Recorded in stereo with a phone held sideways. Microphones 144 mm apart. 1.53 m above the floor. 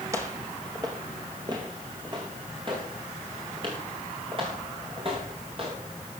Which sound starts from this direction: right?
Footsteps, at 0.1 s.